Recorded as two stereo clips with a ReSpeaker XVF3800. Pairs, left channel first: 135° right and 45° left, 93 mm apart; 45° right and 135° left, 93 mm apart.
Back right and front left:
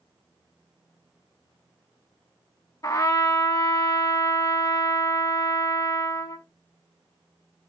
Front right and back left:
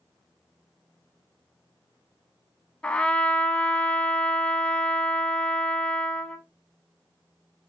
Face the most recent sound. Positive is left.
turn(degrees=-115)